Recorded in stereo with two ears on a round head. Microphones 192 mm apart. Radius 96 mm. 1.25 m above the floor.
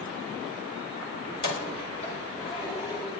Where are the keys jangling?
45° left (ahead or behind), 3 m; by 3.1 s 25° left (ahead or behind), 5 m.